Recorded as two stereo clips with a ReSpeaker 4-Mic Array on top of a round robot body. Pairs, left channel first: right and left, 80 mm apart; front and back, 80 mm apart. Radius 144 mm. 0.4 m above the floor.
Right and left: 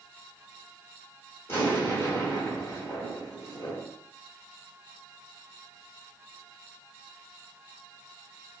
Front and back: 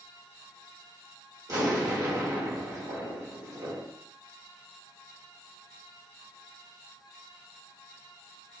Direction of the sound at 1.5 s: 145° right.